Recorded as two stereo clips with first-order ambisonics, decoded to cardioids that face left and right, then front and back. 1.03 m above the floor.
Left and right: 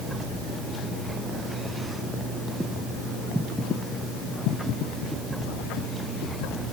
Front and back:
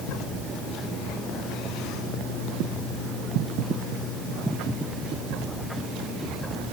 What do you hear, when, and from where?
Only background noise.